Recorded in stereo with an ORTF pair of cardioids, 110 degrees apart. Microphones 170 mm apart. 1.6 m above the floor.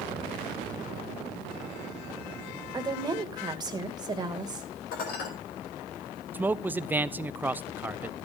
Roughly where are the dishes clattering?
Ahead left.